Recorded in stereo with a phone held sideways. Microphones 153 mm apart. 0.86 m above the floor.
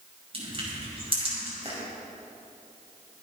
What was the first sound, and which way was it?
Crushing, 40° right (ahead or behind).